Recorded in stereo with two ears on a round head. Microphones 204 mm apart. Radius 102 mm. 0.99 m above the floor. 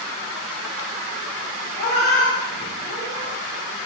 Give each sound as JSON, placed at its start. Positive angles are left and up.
{"t": 1.8, "sound": "a cat meowing", "side_deg": 45, "distance_m": 0.9}